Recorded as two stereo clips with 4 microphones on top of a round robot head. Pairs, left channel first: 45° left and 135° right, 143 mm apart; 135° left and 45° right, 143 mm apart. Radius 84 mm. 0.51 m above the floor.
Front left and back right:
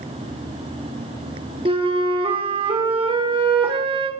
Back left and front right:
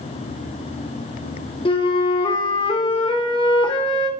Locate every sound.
1.6 s a flute: straight behind, 1.7 m